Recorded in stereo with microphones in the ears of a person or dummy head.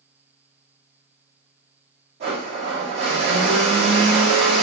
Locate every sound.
2.2 s a blender: 55° right (ahead or behind), 1.1 m